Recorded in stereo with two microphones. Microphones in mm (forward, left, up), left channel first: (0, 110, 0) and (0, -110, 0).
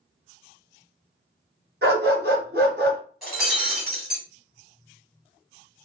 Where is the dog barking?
55° right (ahead or behind), 1.6 m.